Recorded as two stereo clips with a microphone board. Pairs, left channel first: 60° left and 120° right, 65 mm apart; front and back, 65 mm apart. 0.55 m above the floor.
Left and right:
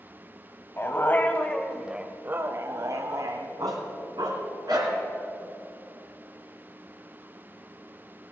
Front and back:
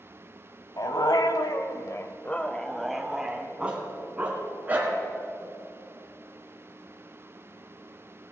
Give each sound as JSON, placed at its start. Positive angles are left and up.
{"t": 0.8, "sound": "a dog barking", "azimuth_deg": 10, "distance_m": 1.2}